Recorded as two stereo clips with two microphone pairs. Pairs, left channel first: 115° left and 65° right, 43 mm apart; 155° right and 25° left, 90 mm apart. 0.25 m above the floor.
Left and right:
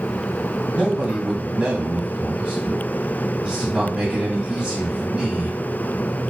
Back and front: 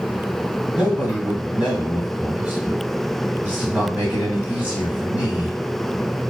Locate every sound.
0.7 s a man speaking: 25° right, 1.6 m